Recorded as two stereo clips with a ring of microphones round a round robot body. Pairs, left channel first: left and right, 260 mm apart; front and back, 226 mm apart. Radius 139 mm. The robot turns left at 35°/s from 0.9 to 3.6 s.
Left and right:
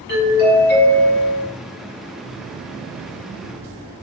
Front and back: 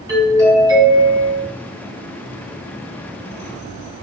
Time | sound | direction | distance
0.1 | a doorbell | 115° left | 2 m